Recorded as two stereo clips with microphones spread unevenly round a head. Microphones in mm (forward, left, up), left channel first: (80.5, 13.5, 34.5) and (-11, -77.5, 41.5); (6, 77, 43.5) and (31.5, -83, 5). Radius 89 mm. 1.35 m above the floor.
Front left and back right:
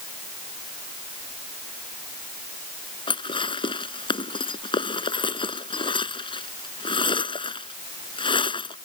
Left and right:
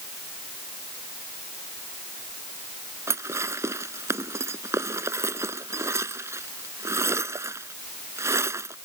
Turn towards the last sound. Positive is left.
turn(degrees=-5)